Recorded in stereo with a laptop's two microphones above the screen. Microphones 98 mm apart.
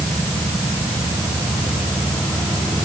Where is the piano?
No piano in this recording.